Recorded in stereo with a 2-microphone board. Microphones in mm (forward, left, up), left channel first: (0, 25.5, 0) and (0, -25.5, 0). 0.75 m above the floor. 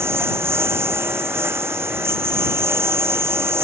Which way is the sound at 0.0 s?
55° right (ahead or behind).